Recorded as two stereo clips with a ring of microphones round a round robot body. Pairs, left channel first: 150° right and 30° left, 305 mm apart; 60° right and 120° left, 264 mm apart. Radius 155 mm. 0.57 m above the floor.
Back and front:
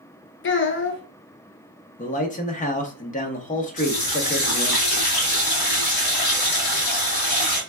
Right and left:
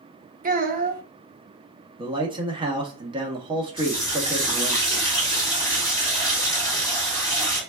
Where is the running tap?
140° right, 2.0 m.